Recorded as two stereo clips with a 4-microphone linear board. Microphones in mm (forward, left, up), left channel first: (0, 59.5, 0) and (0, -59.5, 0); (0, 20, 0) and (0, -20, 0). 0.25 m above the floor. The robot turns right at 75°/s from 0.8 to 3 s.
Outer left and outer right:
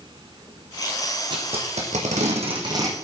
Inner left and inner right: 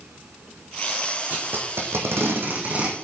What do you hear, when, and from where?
1.3 s tape being pulled: 35° right (ahead or behind), 2.5 m; by 3.0 s 15° right (ahead or behind), 2.5 m